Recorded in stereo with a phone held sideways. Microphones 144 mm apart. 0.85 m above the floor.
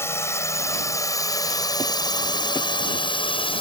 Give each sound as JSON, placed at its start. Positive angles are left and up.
{"t": 0.0, "sound": "a drone", "side_deg": 15}